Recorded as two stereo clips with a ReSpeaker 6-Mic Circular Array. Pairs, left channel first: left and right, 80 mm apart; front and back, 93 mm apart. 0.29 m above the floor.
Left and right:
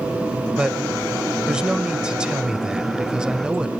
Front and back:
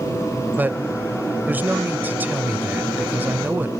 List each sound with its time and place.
0.6 s a man speaking: 150° right, 0.9 m